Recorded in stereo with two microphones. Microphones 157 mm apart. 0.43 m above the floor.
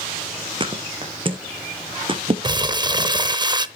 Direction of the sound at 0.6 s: 35° right (ahead or behind).